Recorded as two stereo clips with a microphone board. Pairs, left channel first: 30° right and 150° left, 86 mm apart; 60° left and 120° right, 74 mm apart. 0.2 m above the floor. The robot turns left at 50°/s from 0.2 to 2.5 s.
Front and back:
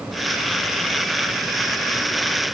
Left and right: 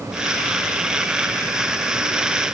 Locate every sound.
Only background noise.